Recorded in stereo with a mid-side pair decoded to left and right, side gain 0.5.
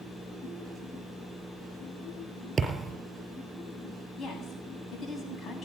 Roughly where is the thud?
Ahead right.